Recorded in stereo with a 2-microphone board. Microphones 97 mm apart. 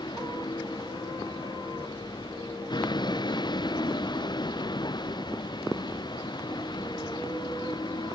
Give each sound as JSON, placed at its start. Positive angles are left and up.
{"t": 0.0, "sound": "a vehicle", "side_deg": 50}